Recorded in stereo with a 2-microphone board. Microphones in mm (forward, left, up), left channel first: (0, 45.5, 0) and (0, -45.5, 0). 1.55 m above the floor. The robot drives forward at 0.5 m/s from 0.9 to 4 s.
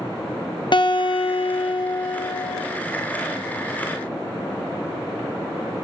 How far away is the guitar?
About 0.6 m.